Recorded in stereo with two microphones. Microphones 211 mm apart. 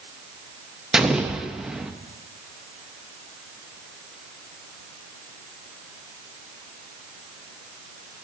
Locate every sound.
0.9 s an explosion: centre (ahead or behind), 0.5 m